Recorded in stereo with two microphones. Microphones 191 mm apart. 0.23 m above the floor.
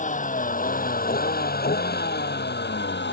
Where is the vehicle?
40° left (ahead or behind); by 3.1 s 70° left (ahead or behind).